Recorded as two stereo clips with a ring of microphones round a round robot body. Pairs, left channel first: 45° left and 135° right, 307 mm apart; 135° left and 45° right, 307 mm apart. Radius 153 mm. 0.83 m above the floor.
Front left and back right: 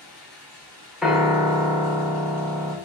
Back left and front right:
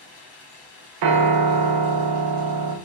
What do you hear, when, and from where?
0.0 s running water: 145° left, 1.2 m
1.0 s a piano: 45° right, 0.5 m